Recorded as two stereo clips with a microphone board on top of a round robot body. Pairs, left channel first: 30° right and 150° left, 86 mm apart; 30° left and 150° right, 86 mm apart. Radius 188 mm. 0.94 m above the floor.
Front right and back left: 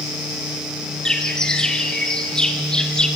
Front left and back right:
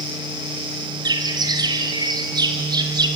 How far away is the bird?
About 1.9 m.